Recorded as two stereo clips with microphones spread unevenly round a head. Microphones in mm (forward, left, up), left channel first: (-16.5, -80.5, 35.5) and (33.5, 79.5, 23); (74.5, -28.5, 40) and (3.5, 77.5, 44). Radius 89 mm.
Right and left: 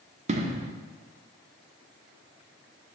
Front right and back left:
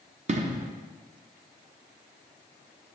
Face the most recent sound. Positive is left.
turn(degrees=110)